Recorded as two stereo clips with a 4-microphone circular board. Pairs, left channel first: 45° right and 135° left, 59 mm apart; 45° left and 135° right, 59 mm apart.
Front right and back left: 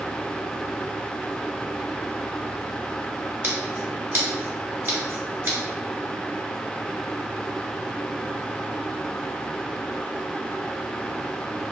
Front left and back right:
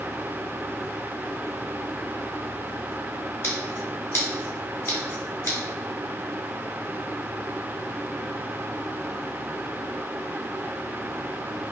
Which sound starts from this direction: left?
Scissors, at 3.4 s.